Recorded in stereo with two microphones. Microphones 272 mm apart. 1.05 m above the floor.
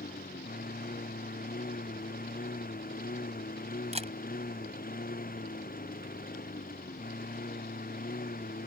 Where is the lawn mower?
30° left (ahead or behind).